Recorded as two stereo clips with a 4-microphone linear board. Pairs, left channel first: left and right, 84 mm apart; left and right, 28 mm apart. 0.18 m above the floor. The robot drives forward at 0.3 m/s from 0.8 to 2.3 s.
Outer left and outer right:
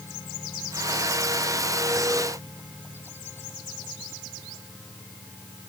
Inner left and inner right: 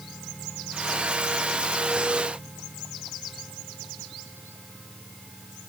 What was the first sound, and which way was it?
Only background noise.